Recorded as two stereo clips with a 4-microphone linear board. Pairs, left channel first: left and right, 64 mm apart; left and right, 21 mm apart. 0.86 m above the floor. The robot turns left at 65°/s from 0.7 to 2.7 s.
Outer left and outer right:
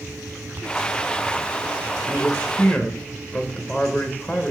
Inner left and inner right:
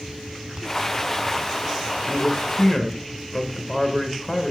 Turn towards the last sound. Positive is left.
turn(degrees=15)  # may be behind; listen again after turning